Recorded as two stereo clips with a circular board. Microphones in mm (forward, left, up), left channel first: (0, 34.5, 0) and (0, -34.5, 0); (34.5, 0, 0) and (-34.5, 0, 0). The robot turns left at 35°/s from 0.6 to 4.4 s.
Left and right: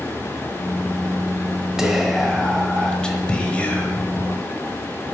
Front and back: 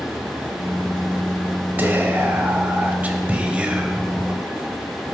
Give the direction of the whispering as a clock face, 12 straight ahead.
6 o'clock.